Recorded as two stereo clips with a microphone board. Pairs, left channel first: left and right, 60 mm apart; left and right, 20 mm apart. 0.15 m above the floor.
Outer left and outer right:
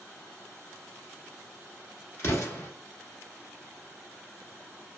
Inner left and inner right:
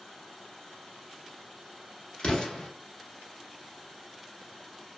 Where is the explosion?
50° left (ahead or behind), 1.0 m.